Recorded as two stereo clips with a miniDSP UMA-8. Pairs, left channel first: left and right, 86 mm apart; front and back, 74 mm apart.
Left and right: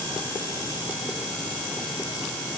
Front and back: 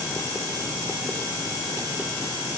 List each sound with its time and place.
Only background noise.